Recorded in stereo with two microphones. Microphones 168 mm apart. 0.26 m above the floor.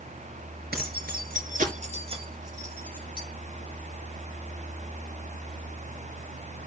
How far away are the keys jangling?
About 3 m.